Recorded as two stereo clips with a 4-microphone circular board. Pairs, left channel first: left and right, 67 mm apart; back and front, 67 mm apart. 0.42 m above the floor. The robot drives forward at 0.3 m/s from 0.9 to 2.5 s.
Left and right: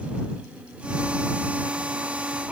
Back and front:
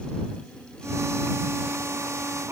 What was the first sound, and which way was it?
Only background noise.